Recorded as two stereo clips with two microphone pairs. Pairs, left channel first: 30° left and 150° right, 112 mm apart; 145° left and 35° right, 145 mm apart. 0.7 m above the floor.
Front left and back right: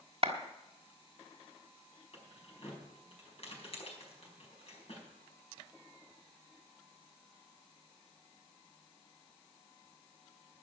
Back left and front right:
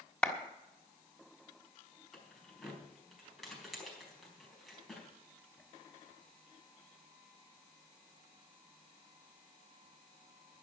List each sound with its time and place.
0.2 s a clap: 130° right, 1.5 m
2.1 s keys jangling: 55° left, 4.5 m